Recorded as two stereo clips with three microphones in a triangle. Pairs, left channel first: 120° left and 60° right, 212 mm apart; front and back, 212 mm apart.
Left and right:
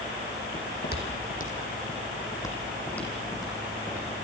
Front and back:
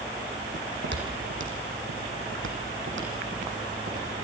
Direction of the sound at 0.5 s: 145° left.